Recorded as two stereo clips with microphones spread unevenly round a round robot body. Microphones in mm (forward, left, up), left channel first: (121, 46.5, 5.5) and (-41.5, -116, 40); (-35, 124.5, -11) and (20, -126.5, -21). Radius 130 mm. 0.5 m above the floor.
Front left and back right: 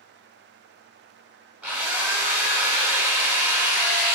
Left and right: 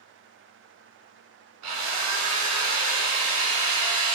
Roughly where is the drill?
Ahead right.